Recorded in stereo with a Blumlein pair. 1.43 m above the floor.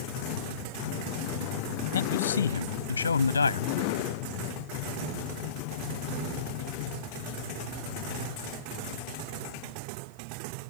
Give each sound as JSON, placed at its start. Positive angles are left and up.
{"t": 1.9, "sound": "a man speaking", "azimuth_deg": 65}